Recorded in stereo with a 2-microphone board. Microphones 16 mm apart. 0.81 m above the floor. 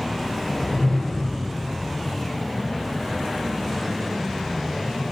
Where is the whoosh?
40° left (ahead or behind), 0.7 m.